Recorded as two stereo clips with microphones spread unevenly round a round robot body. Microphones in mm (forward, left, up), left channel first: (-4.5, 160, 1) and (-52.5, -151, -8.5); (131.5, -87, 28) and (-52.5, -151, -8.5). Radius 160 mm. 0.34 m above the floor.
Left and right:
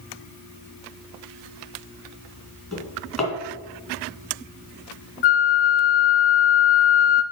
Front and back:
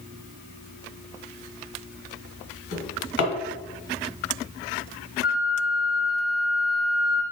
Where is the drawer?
5° right, 2 m.